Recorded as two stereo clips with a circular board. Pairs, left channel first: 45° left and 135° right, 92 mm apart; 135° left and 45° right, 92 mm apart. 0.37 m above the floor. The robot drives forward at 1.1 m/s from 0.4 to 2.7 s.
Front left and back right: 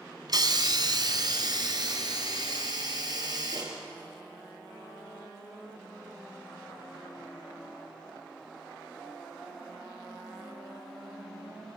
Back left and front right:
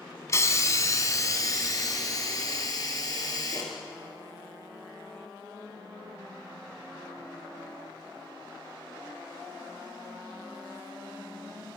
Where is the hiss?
170° right, 1.6 m; by 3.8 s 175° right, 4 m.